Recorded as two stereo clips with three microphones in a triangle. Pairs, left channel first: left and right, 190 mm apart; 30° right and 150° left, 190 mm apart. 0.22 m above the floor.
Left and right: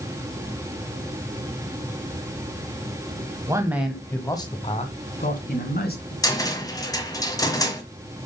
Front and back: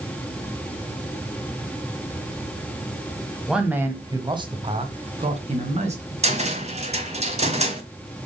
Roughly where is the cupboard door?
Behind left.